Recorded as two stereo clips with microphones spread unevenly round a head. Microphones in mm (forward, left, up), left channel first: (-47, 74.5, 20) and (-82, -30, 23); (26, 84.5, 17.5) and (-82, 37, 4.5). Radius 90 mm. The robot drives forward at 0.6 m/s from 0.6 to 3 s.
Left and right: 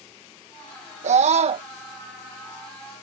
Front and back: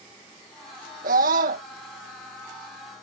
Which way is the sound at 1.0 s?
125° right.